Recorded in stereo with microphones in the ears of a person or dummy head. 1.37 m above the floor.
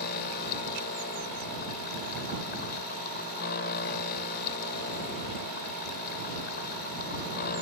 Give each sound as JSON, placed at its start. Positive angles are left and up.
{"t": 0.0, "sound": "a machine running", "side_deg": 55}